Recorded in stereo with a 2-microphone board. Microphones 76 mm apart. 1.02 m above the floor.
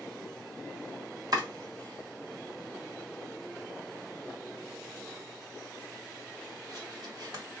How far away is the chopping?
About 1.7 m.